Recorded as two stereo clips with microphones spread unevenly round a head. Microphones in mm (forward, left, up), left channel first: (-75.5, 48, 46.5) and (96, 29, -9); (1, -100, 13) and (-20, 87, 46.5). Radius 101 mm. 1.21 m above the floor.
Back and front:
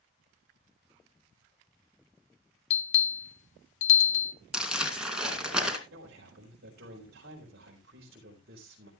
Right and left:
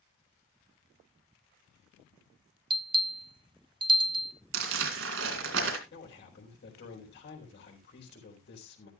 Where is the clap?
I don't hear a clap.